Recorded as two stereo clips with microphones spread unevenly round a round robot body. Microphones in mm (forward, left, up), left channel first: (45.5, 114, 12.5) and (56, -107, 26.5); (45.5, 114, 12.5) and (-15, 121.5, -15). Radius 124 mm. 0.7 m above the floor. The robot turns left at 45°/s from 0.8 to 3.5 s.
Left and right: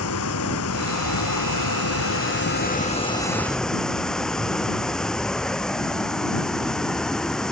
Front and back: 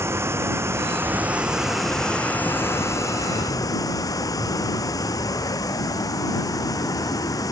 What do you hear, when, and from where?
0.0 s running water: 125° left; by 7.5 s 5° left